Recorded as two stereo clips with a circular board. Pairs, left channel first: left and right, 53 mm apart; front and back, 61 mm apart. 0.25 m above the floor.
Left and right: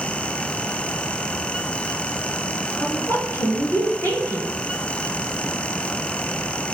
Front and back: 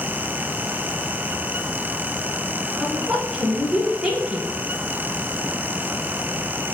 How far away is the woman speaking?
About 2.5 m.